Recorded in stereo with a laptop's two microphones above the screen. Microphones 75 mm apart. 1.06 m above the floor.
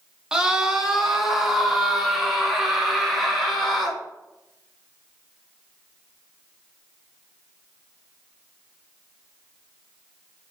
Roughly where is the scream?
Centre.